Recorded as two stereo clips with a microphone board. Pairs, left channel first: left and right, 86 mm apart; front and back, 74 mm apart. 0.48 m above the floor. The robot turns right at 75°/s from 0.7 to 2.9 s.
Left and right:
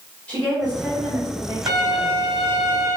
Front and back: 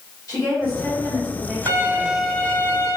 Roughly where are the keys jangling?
I don't hear keys jangling.